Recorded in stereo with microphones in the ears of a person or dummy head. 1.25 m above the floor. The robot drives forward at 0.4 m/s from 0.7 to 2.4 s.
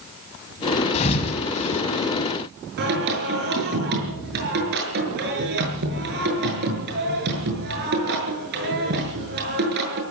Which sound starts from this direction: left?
A thud, at 0.9 s.